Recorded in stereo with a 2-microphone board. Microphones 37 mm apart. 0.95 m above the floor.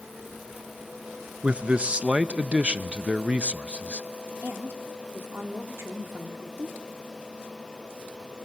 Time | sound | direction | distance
1.4 | a man speaking | 30° right (ahead or behind) | 0.7 m
4.4 | a woman speaking | 75° right (ahead or behind) | 2 m